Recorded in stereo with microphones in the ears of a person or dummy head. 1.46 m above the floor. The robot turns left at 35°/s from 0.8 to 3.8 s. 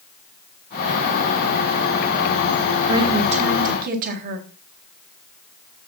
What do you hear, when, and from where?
2.9 s a woman speaking: 20° right, 1.7 m; by 4.4 s 50° right, 1.7 m